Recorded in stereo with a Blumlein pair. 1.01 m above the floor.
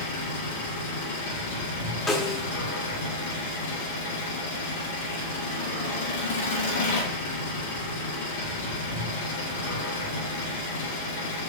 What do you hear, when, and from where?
0.0 s an engine running: 55° left, 2.5 m
2.1 s a snare drum: 20° left, 0.6 m